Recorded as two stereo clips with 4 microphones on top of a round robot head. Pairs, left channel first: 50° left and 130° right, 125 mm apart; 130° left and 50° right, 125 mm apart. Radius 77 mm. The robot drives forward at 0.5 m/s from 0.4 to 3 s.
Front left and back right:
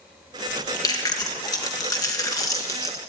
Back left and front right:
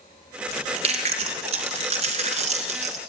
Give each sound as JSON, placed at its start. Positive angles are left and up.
{"t": 0.5, "sound": "chewing", "azimuth_deg": -10, "distance_m": 3.5}